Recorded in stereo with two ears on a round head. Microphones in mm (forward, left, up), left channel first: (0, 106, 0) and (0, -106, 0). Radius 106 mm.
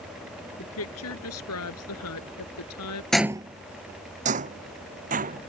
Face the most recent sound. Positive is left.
turn(degrees=-35)  # may be behind; listen again after turning